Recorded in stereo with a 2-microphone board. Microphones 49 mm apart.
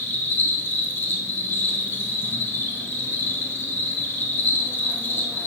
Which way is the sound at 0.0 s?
55° left (ahead or behind).